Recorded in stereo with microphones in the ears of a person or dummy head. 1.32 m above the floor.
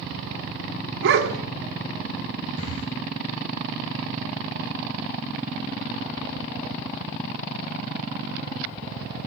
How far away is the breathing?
About 6 m.